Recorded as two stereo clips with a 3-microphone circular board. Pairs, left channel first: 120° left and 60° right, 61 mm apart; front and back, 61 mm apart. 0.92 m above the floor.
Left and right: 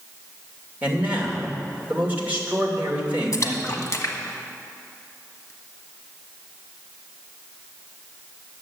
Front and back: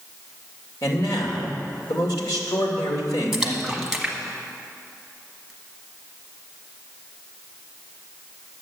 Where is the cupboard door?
No cupboard door in this recording.